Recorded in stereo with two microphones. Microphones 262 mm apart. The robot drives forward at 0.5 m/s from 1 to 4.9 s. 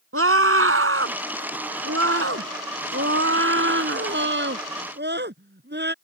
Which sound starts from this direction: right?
A scream, at 0.1 s.